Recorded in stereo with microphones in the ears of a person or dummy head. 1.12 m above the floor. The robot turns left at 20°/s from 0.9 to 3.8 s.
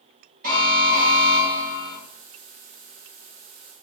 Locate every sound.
0.4 s an alarm: 50° right (ahead or behind), 1.7 m; by 2.0 s 55° right (ahead or behind), 1.7 m